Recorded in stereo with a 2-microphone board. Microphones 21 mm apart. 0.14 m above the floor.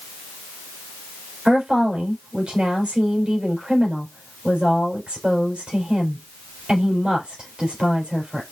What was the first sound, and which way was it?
A woman speaking, 65° right (ahead or behind).